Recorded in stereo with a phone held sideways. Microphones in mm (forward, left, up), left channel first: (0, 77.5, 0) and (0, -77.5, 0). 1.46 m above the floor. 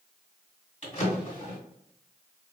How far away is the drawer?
About 1.7 m.